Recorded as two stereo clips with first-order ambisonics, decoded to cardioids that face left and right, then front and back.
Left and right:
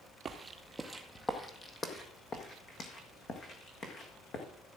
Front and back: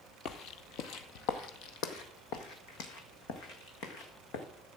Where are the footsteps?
30° right, 0.9 m; by 4.5 s 35° left, 3 m.